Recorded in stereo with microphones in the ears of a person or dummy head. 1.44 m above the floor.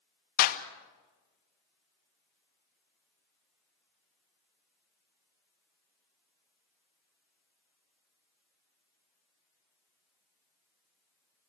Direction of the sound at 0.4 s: 55° left (ahead or behind).